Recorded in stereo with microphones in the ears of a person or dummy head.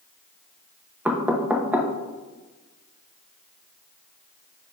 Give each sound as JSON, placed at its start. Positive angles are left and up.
{"t": 1.1, "sound": "knocking", "side_deg": -10, "distance_m": 0.7}